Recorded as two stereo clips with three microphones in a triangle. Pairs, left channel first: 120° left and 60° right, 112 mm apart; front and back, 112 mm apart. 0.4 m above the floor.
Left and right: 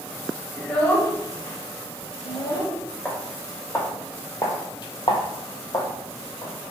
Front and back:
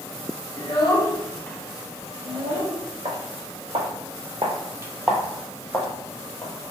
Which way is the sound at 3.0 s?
160° right.